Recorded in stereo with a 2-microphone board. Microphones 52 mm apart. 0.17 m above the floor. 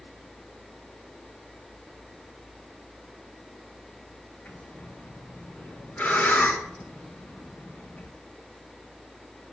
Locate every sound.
4.5 s breathing: 35° left (ahead or behind), 5 m